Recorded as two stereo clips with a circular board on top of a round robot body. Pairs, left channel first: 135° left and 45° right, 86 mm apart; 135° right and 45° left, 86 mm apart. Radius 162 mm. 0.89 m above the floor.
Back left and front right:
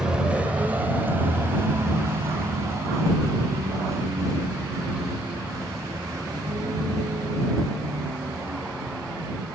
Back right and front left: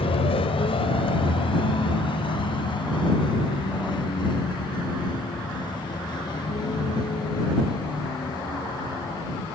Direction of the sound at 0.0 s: 125° right.